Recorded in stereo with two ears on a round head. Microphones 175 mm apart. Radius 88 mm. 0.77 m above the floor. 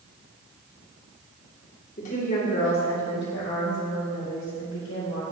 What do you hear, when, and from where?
2.0 s a woman speaking: 40° left (ahead or behind), 1.8 m; by 5.2 s 80° left, 3 m